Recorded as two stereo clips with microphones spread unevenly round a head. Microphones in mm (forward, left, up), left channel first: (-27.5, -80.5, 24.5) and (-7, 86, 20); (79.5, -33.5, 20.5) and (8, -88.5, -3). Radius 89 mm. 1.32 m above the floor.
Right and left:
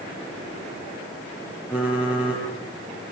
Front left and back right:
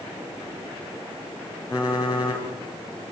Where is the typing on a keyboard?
Straight ahead, 6.5 m.